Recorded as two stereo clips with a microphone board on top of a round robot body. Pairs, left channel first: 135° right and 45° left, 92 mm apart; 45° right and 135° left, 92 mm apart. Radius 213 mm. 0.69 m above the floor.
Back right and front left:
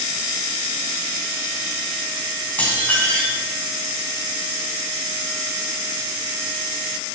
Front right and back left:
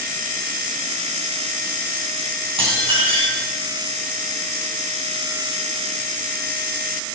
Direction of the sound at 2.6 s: 150° left.